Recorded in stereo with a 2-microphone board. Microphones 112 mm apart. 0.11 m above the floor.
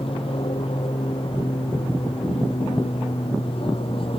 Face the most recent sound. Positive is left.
turn(degrees=55)  # may be behind; listen again after turning